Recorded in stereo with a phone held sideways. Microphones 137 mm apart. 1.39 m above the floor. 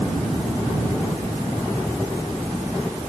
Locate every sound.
Only background noise.